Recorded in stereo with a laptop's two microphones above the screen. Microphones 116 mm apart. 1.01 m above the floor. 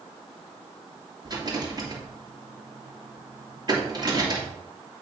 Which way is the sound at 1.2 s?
35° right (ahead or behind).